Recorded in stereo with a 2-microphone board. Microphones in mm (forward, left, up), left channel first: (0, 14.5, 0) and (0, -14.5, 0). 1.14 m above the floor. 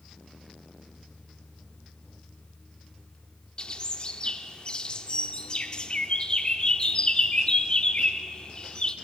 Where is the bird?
30° left (ahead or behind), 0.9 m.